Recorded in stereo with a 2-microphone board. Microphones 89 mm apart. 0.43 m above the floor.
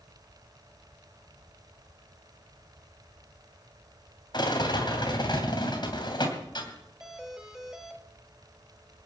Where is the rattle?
55° left (ahead or behind), 3 m.